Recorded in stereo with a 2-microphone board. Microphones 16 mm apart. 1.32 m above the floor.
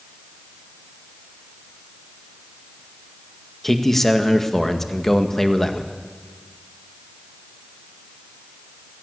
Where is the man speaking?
10° left (ahead or behind), 1.8 m.